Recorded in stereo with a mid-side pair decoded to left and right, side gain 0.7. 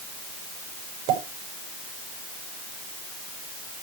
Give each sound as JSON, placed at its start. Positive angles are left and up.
{"t": 1.1, "sound": "a pop", "azimuth_deg": -70, "distance_m": 6.0}